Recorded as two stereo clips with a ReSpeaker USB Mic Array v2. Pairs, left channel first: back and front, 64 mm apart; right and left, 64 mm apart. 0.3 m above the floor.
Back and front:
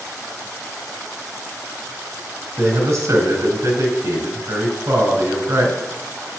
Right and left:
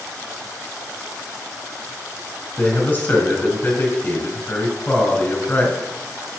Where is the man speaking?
25° right, 3 m.